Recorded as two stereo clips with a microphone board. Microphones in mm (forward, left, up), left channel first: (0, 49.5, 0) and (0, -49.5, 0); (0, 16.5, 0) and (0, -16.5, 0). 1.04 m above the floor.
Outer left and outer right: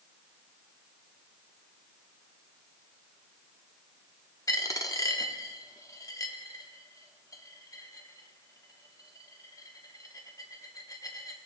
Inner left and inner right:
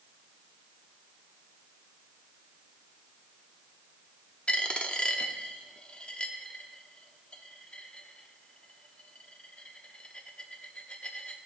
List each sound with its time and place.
4.5 s a dropped coin: 35° left (ahead or behind), 0.8 m